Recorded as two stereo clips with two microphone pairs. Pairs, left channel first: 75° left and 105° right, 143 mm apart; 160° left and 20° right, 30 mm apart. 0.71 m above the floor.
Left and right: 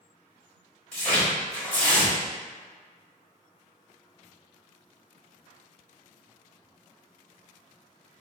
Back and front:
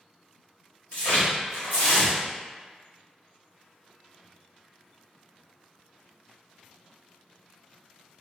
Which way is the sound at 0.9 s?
155° left.